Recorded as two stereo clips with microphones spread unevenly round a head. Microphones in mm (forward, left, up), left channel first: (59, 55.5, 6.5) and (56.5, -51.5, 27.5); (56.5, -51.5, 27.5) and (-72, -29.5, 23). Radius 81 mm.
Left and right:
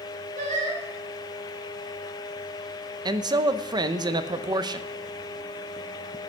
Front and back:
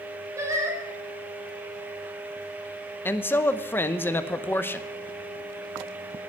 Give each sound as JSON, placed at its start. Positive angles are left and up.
{"t": 0.4, "sound": "singing", "azimuth_deg": -125, "distance_m": 4.0}
{"t": 3.0, "sound": "a man speaking", "azimuth_deg": -70, "distance_m": 0.8}